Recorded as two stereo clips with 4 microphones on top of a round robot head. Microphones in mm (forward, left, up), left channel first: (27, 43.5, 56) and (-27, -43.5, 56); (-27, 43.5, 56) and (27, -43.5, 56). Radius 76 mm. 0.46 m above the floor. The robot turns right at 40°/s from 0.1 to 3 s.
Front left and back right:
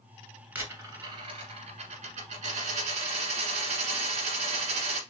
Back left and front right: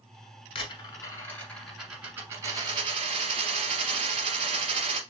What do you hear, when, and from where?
0.6 s a dropped coin: 165° left, 1.5 m; by 5.0 s 100° right, 1.5 m